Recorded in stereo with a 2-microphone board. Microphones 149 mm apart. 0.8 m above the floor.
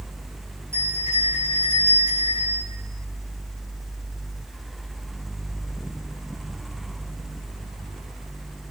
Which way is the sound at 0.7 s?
20° right (ahead or behind).